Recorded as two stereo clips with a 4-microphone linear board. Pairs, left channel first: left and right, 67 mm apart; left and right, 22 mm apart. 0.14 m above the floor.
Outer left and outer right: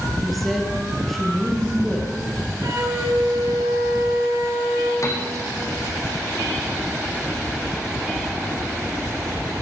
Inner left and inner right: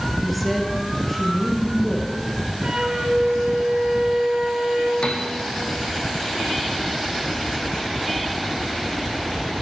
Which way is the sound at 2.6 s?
50° right (ahead or behind).